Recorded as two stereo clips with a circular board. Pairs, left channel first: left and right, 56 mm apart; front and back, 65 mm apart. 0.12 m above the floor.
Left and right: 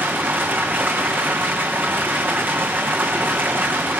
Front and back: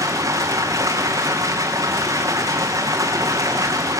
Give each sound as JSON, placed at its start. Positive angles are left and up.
{"t": 0.0, "sound": "running water", "azimuth_deg": -145, "distance_m": 4.0}